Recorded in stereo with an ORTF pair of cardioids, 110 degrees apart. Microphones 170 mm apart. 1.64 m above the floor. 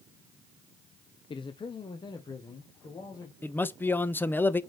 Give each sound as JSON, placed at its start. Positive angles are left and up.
{"t": 1.3, "sound": "a man speaking", "azimuth_deg": 30, "distance_m": 0.7}
{"t": 3.4, "sound": "a man speaking", "azimuth_deg": 10, "distance_m": 0.7}